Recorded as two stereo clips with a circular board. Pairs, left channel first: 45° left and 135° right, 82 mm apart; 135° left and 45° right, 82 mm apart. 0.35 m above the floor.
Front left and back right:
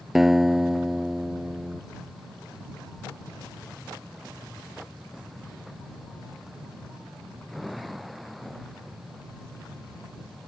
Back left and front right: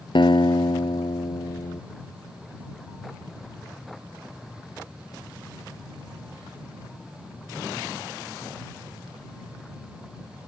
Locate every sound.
0.1 s a guitar: 140° left